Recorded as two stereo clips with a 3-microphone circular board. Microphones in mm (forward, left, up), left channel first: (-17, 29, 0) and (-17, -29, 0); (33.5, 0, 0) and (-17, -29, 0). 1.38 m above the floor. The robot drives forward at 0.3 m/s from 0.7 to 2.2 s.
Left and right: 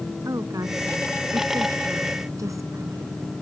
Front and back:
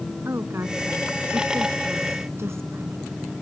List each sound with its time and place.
0.2 s a woman speaking: 110° right